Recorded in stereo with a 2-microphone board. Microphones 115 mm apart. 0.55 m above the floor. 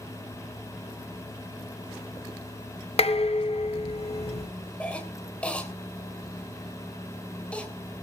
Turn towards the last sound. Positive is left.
turn(degrees=10)  # may be behind; listen again after turning